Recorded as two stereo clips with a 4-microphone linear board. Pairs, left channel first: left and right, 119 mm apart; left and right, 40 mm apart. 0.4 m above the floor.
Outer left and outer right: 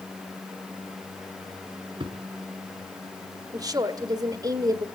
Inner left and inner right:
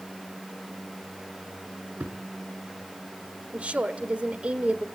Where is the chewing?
I don't hear chewing.